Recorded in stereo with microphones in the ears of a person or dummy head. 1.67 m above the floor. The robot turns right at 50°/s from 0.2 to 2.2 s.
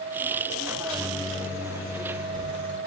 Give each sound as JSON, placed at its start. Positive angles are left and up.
{"t": 0.7, "sound": "a microwave", "azimuth_deg": 115, "distance_m": 1.5}